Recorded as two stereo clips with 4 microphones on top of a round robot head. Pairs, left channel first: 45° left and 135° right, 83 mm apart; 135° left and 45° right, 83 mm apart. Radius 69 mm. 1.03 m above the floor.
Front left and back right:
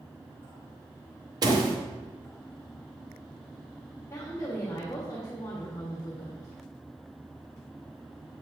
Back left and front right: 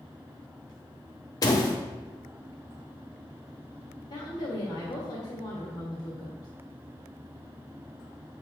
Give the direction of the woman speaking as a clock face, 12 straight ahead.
8 o'clock.